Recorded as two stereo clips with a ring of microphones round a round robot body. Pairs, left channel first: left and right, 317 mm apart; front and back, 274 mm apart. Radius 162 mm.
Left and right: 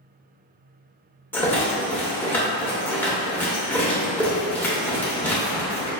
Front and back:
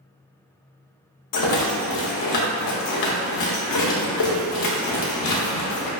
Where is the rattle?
5° left, 0.8 m.